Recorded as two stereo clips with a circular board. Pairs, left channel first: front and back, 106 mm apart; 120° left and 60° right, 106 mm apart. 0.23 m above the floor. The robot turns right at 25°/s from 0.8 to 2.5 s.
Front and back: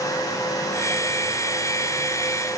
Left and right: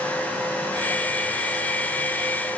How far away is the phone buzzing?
I don't hear a phone buzzing.